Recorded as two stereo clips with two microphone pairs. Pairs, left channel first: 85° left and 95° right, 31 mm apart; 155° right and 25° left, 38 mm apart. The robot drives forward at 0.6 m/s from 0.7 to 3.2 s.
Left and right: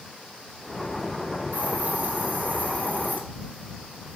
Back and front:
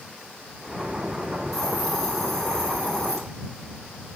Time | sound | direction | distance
1.5 | a hiss | 70° right | 4 m